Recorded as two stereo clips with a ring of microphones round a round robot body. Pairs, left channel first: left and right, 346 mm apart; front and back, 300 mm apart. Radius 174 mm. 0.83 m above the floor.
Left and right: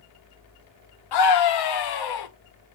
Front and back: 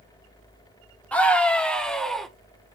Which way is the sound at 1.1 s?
85° left.